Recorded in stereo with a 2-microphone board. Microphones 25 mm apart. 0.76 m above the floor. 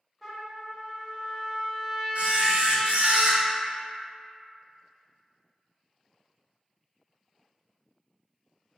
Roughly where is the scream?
No scream in this recording.